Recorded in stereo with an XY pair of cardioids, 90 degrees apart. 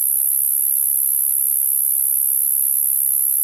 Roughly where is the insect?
Ahead right.